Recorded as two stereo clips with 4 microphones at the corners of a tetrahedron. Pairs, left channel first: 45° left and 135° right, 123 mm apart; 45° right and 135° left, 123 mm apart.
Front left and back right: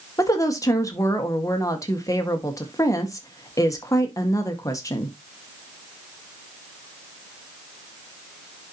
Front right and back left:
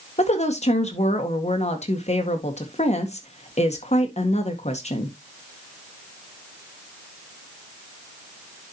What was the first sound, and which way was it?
A woman speaking, 20° right.